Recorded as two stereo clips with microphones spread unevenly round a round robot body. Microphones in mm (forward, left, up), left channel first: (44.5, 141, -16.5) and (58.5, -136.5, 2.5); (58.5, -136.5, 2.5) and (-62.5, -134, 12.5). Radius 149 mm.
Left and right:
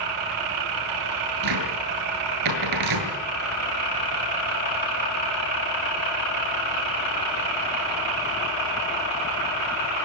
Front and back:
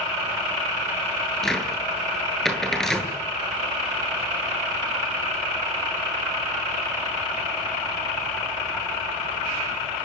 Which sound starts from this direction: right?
A cupboard door, at 1.4 s.